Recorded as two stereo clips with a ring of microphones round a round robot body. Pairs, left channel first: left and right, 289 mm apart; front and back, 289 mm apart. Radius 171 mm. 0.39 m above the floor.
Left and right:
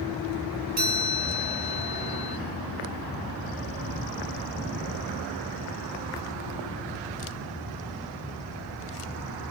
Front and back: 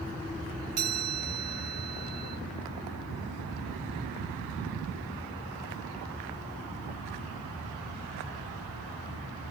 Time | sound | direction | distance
0.8 | a chime | 140° right | 2 m